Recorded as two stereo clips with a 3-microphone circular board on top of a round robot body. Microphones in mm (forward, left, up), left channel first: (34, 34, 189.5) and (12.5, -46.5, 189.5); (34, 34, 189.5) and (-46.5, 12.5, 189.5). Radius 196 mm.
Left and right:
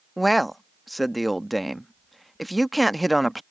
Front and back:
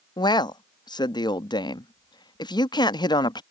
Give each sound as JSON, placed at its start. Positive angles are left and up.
{"t": 0.2, "sound": "a man speaking", "azimuth_deg": -15}